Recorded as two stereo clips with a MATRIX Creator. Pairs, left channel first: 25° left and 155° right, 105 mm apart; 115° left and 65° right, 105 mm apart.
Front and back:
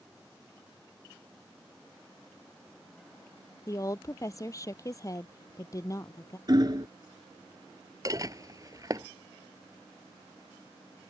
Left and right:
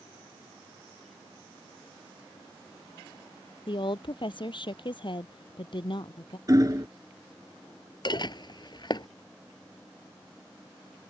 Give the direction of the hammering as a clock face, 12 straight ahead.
4 o'clock.